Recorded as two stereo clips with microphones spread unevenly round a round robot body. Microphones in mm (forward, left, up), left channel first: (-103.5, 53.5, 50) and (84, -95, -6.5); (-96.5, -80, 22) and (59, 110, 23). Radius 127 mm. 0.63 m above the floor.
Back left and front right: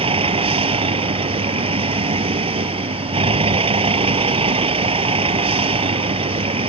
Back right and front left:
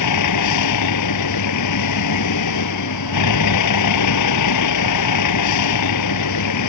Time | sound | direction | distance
0.0 | a vehicle | 105° right | ?